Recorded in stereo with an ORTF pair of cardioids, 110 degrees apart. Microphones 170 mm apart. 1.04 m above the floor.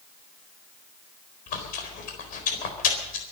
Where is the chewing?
65° left, 4 m.